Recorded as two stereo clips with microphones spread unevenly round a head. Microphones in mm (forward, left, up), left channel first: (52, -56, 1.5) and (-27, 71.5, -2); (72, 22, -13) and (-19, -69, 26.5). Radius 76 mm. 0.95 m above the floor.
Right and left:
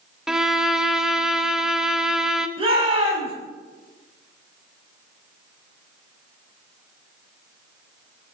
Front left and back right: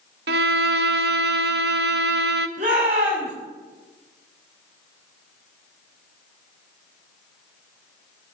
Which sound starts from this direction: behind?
A shout, at 2.6 s.